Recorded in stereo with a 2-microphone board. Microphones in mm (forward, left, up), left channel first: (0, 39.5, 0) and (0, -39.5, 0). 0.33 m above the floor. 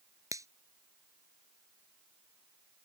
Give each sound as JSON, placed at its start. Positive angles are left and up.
{"t": 0.3, "sound": "a finger snap", "side_deg": -45}